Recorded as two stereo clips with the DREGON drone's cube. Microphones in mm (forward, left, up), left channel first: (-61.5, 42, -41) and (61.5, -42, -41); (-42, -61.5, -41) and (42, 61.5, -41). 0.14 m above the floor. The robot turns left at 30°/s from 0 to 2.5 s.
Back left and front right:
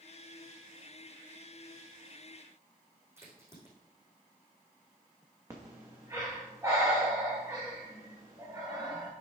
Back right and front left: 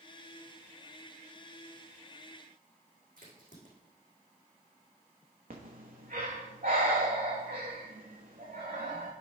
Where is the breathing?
35° left, 2.5 m.